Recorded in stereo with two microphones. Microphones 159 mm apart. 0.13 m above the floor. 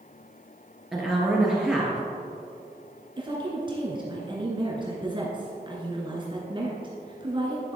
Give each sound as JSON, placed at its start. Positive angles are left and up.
{"t": 0.9, "sound": "a woman speaking", "side_deg": -5, "distance_m": 2.5}
{"t": 3.2, "sound": "a woman speaking", "side_deg": -30, "distance_m": 1.6}